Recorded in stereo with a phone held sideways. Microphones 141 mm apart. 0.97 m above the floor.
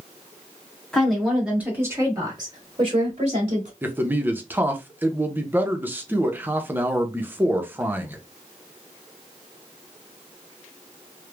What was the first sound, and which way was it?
A woman speaking, 5° left (ahead or behind).